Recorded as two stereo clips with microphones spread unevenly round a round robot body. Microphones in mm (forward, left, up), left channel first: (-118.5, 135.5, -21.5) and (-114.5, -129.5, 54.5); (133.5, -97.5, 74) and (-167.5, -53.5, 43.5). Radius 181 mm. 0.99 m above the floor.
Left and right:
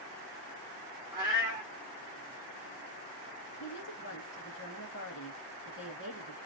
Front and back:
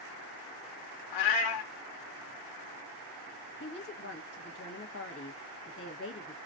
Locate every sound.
1.1 s a cat meowing: 15° right, 0.7 m
3.6 s a woman speaking: 45° left, 1.1 m